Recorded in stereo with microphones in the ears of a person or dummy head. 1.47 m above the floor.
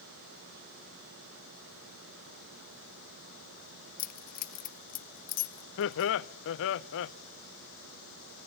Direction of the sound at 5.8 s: 60° left (ahead or behind).